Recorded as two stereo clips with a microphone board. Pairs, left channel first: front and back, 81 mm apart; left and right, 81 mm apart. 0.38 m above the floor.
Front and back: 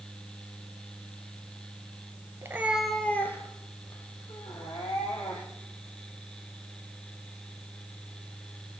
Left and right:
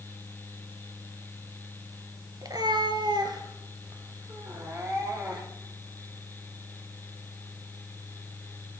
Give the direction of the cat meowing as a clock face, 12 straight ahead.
4 o'clock.